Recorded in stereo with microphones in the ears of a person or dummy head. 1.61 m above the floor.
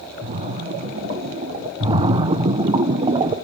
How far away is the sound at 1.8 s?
About 0.7 m.